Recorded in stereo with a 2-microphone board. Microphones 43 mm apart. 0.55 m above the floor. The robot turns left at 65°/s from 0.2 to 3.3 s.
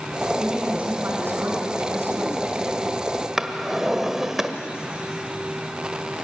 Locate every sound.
0.4 s a woman speaking: 10° right, 5 m; by 2.7 s 160° right, 5 m
3.4 s a drawer: 10° right (ahead or behind), 1.2 m